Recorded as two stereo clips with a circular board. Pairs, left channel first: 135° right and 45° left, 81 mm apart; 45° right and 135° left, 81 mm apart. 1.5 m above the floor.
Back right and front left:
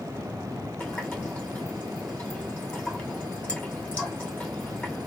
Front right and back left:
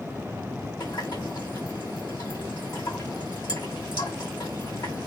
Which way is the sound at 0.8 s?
65° right.